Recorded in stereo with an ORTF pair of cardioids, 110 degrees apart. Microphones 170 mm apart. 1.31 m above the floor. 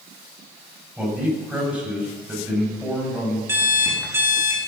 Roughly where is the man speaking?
Ahead.